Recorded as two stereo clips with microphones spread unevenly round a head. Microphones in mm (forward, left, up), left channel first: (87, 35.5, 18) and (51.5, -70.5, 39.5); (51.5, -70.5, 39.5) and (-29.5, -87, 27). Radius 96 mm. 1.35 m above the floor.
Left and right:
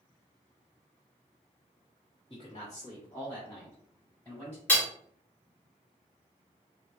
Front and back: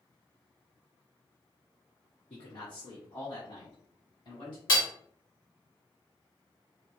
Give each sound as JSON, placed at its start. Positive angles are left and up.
{"t": 2.3, "sound": "a man speaking", "azimuth_deg": 20, "distance_m": 1.9}
{"t": 4.7, "sound": "hammering", "azimuth_deg": -10, "distance_m": 1.7}